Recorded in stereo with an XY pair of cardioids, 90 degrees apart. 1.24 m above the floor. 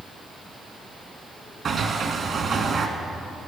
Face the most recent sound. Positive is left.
turn(degrees=-55)